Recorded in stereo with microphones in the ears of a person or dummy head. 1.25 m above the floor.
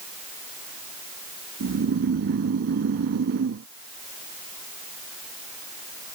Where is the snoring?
55° right (ahead or behind).